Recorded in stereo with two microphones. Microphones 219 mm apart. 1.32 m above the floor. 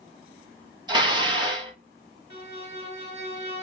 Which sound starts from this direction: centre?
Dishes clattering, at 0.9 s.